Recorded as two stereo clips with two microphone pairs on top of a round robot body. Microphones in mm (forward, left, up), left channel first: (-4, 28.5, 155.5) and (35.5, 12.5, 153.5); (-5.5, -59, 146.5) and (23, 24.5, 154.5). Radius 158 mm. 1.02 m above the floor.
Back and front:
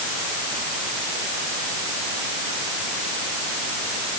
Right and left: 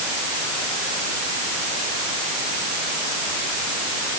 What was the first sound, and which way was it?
Only background noise.